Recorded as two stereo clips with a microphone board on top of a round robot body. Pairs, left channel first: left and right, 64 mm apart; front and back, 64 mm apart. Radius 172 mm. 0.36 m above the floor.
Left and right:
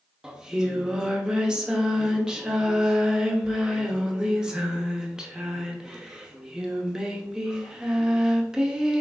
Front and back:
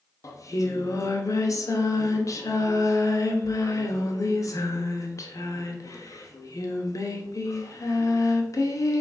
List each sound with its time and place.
0.2 s singing: 10° right, 0.9 m